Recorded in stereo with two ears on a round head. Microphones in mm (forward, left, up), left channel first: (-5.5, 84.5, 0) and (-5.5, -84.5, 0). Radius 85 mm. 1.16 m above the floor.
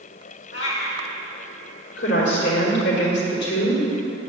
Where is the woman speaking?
65° left (ahead or behind), 3 m.